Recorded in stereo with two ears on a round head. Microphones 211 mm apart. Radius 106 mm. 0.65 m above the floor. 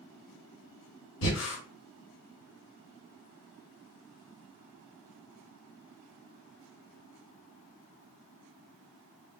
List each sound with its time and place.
1.2 s breathing: 60° left (ahead or behind), 2 m